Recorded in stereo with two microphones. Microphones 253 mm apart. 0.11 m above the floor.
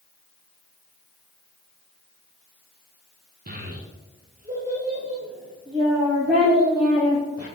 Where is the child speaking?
35° right (ahead or behind), 0.9 m; by 7.5 s 20° right (ahead or behind), 3.5 m.